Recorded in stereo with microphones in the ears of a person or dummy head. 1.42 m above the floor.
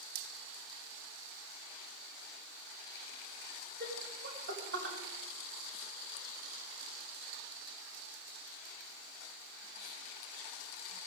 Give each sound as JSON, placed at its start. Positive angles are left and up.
{"t": 3.8, "sound": "laughter", "side_deg": -55, "distance_m": 3.0}